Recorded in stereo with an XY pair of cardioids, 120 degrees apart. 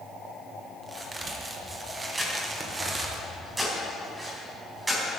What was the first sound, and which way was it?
A crack, 25° right.